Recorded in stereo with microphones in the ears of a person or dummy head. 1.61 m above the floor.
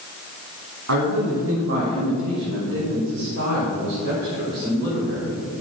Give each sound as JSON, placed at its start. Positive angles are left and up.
{"t": 0.9, "sound": "a man speaking", "side_deg": -80, "distance_m": 4.0}